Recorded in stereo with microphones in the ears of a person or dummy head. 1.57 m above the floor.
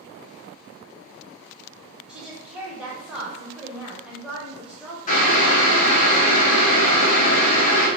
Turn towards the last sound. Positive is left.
turn(degrees=40)  # may be behind; listen again after turning